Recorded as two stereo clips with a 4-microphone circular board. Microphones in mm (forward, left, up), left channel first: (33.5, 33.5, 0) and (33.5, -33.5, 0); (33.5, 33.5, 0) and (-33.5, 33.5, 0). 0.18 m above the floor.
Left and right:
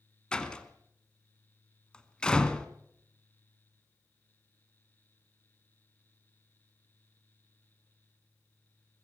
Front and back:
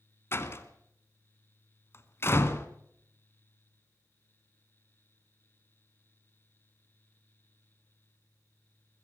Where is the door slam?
20° left, 1.5 m.